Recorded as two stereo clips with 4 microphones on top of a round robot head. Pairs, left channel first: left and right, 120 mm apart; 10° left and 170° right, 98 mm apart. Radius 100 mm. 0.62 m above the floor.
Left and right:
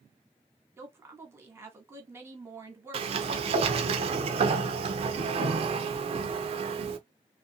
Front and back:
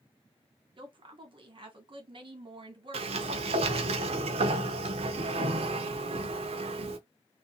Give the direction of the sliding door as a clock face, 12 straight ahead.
5 o'clock.